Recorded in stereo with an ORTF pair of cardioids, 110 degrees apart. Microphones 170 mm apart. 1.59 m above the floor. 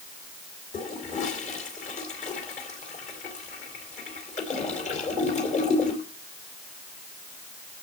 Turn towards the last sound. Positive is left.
turn(degrees=45)